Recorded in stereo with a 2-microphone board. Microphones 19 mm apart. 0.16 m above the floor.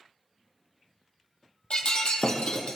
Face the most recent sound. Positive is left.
turn(degrees=60)  # may be behind; listen again after turning